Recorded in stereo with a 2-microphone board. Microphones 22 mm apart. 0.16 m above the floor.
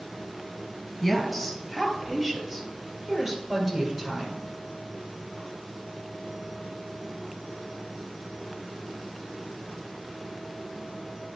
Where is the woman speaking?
Centre (ahead or behind), 2 m; by 4.4 s 25° right (ahead or behind), 3.5 m.